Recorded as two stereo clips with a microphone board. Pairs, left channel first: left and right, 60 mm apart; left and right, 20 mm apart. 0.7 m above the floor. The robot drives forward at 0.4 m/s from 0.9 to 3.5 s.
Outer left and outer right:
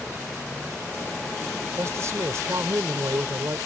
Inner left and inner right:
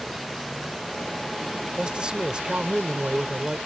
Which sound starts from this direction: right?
A man speaking, at 1.8 s.